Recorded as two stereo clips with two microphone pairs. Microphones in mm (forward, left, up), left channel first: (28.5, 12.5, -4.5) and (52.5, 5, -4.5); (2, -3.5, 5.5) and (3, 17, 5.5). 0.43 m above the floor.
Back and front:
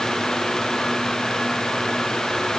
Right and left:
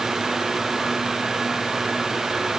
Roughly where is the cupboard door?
No cupboard door in this recording.